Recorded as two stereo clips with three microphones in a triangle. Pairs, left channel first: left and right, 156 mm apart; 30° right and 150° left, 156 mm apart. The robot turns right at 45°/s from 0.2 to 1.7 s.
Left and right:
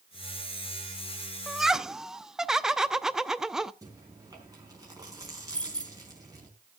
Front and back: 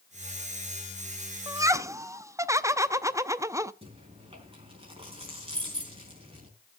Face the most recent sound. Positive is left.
turn(degrees=165)